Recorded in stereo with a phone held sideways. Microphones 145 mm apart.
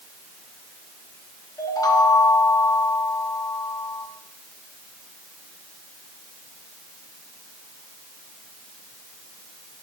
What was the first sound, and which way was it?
A chime, 25° left (ahead or behind).